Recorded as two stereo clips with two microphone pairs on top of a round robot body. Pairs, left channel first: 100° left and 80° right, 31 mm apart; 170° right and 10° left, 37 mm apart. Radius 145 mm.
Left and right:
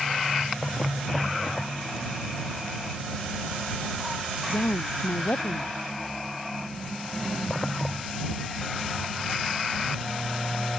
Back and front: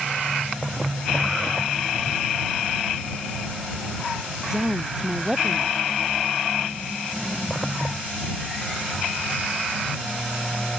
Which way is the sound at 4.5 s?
85° left.